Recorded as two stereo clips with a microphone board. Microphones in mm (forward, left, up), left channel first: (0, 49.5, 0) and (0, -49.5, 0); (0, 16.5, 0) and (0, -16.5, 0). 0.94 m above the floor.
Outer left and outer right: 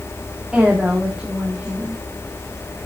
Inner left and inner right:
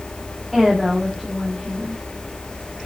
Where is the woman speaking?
10° right (ahead or behind), 1.9 m.